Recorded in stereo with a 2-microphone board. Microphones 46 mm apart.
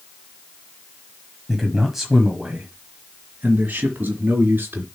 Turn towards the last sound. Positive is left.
turn(degrees=-45)  # may be behind; listen again after turning